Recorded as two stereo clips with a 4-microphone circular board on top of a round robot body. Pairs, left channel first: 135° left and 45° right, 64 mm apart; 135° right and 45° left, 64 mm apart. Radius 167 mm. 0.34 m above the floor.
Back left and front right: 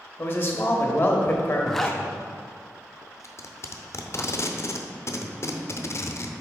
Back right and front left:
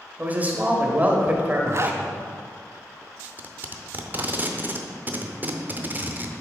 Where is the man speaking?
95° left, 1.0 m.